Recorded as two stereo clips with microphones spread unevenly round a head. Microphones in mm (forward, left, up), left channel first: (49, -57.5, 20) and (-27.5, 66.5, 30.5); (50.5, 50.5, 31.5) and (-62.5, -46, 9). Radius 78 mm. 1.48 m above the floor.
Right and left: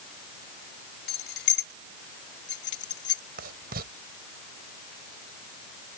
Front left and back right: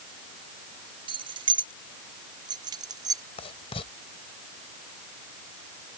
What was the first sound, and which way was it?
Keys jangling, 80° right.